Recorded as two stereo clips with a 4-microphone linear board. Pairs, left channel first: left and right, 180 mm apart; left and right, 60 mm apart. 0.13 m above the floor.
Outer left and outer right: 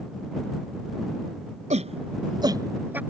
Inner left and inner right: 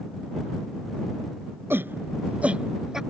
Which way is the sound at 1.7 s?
40° right (ahead or behind).